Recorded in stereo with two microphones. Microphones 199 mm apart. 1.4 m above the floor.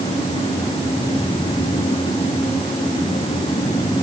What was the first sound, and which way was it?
Only background noise.